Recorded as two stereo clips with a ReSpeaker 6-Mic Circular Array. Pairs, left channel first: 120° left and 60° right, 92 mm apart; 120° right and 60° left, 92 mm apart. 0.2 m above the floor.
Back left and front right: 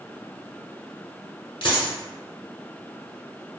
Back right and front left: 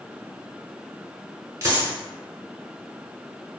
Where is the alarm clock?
I don't hear an alarm clock.